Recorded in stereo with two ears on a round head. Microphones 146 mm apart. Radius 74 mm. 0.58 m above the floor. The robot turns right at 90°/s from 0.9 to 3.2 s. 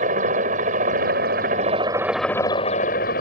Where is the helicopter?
115° right; by 3.2 s 90° left.